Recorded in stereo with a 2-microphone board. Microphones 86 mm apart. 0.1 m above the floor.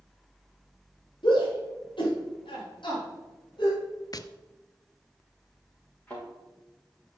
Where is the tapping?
50° left (ahead or behind), 0.5 m.